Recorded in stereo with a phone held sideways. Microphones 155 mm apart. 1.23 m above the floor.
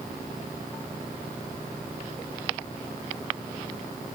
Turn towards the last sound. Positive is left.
No sound to turn to.